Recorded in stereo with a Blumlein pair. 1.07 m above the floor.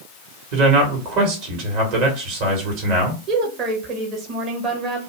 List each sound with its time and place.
0.5 s a man speaking: 45° right, 1.4 m
3.3 s a woman speaking: 35° right, 1.0 m